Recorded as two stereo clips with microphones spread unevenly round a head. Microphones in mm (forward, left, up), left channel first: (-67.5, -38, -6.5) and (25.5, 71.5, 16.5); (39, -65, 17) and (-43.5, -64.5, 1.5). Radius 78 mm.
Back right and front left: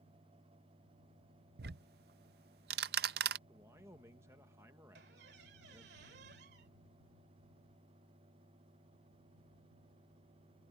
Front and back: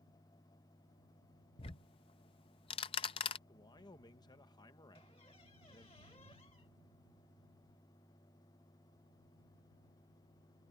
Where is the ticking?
25° left.